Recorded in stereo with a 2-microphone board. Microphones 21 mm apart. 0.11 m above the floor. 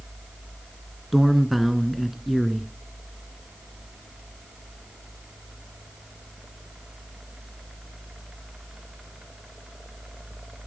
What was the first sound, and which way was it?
A man speaking, 5° right (ahead or behind).